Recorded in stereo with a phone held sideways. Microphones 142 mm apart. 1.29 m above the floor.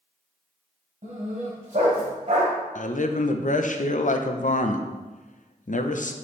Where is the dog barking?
60° right (ahead or behind), 1.9 m; by 2.5 s 50° right (ahead or behind), 1.8 m.